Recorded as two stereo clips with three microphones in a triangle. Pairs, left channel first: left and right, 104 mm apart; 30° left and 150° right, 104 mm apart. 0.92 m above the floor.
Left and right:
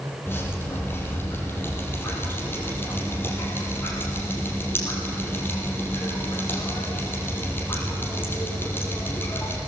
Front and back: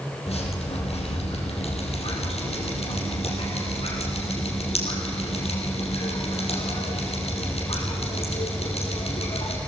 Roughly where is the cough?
No cough in this recording.